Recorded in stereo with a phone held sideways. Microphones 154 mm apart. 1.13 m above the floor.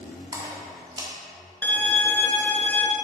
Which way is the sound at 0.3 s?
25° right (ahead or behind).